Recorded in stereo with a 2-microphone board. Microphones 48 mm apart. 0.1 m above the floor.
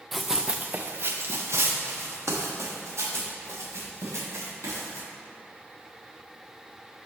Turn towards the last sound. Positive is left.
turn(degrees=-85)